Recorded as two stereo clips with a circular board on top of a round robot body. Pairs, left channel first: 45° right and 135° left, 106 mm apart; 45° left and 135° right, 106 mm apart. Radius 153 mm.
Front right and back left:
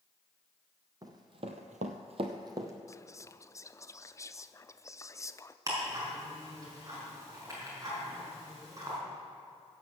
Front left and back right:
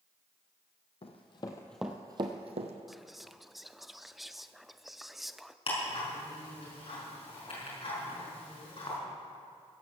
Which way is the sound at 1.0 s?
80° left.